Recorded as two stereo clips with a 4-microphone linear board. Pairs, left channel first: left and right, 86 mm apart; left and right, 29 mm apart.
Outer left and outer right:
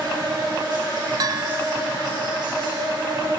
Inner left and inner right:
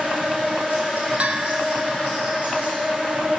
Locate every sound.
0.0 s an insect: 60° right (ahead or behind), 5 m
1.2 s a bell: 50° right (ahead or behind), 0.6 m